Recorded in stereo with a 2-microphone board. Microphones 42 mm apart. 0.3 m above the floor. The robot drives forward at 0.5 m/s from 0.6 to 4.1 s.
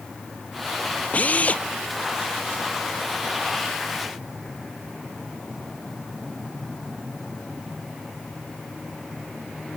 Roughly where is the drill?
Left.